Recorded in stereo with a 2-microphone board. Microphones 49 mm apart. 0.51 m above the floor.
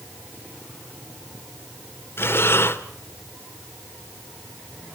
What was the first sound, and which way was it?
Breathing, 50° left (ahead or behind).